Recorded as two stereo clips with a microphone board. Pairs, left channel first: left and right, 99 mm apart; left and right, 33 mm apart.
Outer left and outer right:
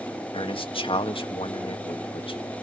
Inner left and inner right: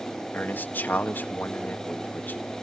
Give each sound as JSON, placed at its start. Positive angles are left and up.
{"t": 0.3, "sound": "a man speaking", "side_deg": 65, "distance_m": 1.9}